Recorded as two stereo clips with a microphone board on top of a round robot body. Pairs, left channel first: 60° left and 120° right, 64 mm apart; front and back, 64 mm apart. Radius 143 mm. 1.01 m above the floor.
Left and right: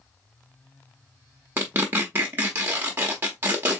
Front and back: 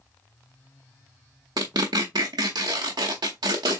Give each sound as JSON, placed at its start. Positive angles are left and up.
{"t": 1.6, "sound": "tearing paper", "azimuth_deg": -175, "distance_m": 0.7}